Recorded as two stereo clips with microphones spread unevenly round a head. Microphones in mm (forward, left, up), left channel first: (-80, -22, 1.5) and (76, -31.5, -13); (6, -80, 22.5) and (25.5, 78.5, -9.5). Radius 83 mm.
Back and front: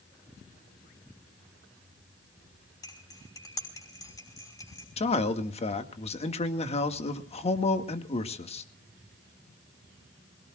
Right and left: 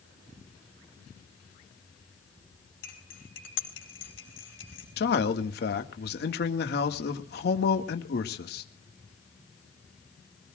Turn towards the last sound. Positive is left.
turn(degrees=-130)